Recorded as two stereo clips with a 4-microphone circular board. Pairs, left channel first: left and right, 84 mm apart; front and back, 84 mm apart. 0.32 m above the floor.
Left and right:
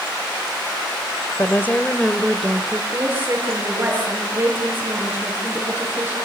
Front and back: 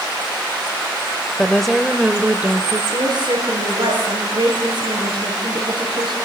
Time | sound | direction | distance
1.4 | a woman speaking | 70° left | 1.4 m
2.9 | a woman speaking | 155° right | 6.5 m